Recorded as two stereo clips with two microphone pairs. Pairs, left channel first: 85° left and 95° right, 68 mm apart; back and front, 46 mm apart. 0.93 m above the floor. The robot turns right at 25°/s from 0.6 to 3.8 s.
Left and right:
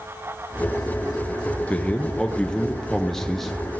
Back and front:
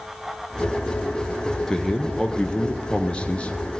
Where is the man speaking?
125° left, 0.7 m; by 3.5 s 170° left, 0.7 m.